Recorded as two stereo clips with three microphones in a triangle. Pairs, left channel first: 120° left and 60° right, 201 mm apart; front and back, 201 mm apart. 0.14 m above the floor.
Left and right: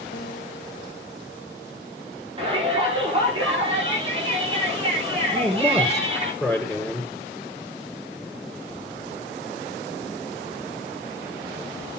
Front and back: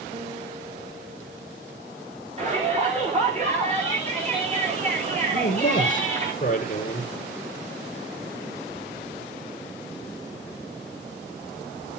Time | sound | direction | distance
0.1 | a guitar | 130° left | 1.6 m
2.4 | a shout | 125° right | 10 m
5.3 | a man speaking | 30° left | 2.5 m